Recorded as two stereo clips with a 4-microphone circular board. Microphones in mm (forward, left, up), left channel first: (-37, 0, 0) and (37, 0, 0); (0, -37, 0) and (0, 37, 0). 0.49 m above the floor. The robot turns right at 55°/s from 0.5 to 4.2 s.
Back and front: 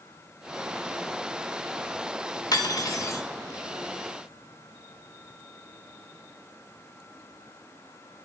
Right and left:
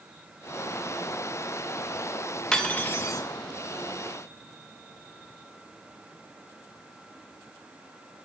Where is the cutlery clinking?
170° right, 0.7 m; by 3.2 s 130° right, 0.7 m.